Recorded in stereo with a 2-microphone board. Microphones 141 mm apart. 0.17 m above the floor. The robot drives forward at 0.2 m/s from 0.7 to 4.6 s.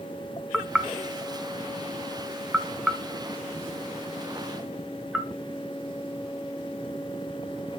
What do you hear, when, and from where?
0.5 s knocking: 5° right (ahead or behind), 0.7 m